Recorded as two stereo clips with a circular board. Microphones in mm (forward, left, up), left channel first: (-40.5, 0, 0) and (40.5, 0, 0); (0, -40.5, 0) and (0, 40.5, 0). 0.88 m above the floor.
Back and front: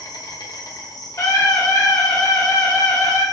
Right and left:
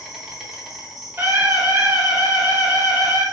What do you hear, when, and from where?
0.0 s an insect: 175° left, 0.7 m
1.2 s a scream: 145° left, 1.5 m